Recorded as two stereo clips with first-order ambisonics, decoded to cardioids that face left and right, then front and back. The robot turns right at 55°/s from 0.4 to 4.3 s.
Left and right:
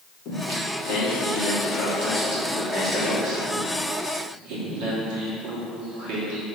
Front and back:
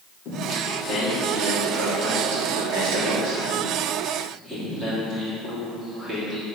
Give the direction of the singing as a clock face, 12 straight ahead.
11 o'clock.